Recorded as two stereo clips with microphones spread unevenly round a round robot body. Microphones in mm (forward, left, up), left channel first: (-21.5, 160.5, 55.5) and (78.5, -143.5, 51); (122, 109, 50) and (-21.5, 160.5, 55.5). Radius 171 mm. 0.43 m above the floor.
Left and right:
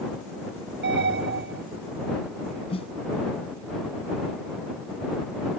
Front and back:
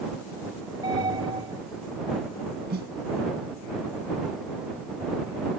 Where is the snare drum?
Straight behind.